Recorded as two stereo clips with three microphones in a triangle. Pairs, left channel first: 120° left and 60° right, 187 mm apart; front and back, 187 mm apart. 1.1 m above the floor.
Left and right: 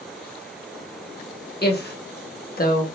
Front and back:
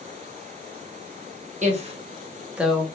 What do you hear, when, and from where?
1.6 s a woman speaking: 140° left, 1.0 m; by 2.8 s 85° left, 0.8 m